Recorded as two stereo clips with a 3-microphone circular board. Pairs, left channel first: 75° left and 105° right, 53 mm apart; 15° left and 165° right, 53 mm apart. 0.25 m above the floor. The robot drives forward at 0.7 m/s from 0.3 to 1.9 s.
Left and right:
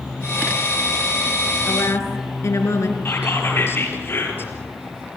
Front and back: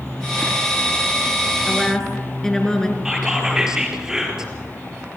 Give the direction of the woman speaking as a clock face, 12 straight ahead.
9 o'clock.